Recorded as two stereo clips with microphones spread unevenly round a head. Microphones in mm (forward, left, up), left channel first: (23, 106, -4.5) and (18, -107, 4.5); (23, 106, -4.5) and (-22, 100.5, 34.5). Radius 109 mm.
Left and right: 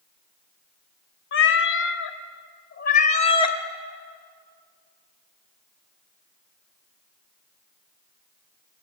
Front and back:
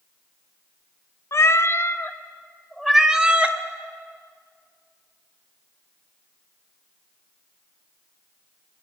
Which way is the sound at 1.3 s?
55° left.